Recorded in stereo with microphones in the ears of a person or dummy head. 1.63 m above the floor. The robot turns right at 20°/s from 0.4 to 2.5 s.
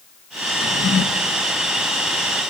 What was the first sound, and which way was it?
A drawer, 55° left (ahead or behind).